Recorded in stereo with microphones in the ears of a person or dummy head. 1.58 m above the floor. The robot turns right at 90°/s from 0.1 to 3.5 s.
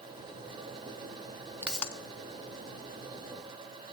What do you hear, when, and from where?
1.6 s a pop: 10° right (ahead or behind), 0.6 m; by 1.9 s 15° left (ahead or behind), 0.6 m